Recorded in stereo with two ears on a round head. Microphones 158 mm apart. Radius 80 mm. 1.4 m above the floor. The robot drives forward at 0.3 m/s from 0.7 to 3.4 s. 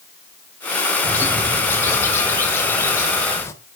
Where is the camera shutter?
I don't hear a camera shutter.